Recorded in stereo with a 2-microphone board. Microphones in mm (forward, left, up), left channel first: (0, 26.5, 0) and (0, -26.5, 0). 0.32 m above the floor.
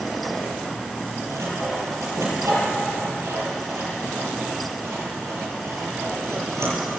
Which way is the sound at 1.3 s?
80° right.